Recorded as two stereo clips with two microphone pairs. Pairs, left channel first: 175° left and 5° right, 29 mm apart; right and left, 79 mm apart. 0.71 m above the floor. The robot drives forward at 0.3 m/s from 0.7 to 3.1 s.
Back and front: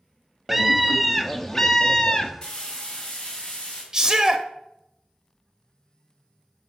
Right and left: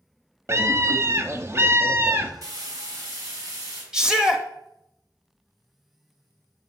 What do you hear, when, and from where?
0.5 s a scream: 80° left, 0.8 m; by 2.3 s 130° left, 0.9 m
2.4 s frying: 125° left, 2.5 m; by 3.8 s 130° left, 2.5 m
3.9 s a shout: 30° left, 0.8 m